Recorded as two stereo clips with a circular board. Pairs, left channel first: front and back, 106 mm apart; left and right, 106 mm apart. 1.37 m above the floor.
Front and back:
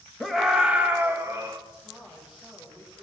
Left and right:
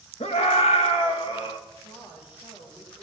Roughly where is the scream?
Left.